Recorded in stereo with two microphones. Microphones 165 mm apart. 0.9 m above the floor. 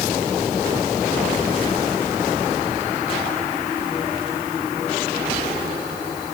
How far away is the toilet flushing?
I don't hear a toilet flushing.